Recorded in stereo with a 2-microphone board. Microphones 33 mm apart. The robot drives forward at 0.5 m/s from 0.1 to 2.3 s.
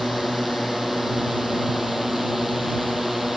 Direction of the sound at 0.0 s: 10° right (ahead or behind).